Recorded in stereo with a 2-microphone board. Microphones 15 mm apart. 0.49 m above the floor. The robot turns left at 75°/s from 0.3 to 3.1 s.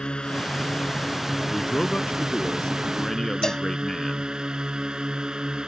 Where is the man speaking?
155° left; by 4.3 s 35° left.